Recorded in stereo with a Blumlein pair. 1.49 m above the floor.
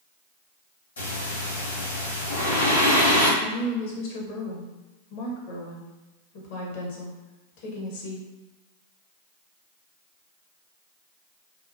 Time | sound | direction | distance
1.0 | breathing | 70° left | 1.6 m
3.4 | a woman speaking | 50° left | 0.9 m